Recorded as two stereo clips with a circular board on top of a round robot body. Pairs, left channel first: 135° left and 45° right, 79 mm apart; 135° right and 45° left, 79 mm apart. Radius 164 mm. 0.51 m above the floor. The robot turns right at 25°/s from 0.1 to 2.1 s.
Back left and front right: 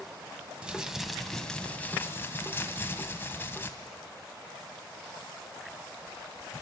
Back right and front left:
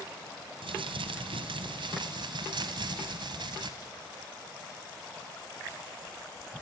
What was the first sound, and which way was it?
Crumpling, 35° left.